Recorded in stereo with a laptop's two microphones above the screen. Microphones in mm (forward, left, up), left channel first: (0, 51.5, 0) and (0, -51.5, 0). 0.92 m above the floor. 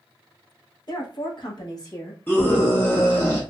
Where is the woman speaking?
45° left (ahead or behind), 1.2 m; by 2.2 s 30° left (ahead or behind), 1.5 m.